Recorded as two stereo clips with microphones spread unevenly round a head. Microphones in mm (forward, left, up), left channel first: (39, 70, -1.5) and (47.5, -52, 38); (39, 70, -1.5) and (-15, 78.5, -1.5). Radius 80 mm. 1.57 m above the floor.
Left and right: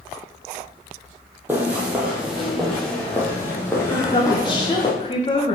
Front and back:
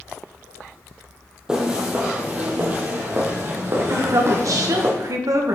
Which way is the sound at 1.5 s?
120° right.